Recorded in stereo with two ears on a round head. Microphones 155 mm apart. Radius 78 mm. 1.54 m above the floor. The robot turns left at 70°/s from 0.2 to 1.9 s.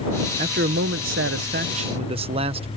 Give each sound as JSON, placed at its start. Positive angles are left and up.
{"t": 0.4, "sound": "a man speaking", "azimuth_deg": -40}